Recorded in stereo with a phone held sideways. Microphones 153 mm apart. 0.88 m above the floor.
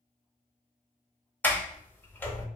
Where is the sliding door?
15° left (ahead or behind), 0.7 m.